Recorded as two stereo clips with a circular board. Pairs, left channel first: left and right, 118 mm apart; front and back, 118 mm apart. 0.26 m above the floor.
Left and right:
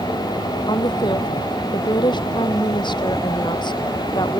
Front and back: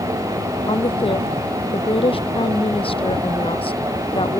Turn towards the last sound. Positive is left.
turn(degrees=40)